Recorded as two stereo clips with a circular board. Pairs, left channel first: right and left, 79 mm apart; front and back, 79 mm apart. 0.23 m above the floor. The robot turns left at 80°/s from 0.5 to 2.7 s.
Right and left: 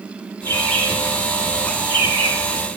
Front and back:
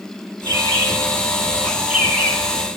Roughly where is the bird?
Behind right.